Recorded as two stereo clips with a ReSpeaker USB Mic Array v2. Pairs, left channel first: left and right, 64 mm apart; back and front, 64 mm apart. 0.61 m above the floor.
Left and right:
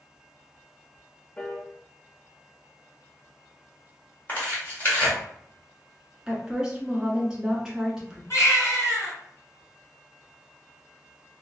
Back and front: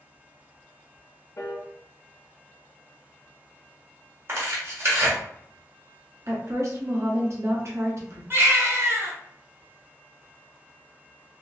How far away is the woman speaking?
About 1.3 m.